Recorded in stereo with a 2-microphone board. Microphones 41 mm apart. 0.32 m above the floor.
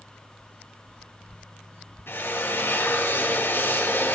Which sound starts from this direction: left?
A drill, at 2.1 s.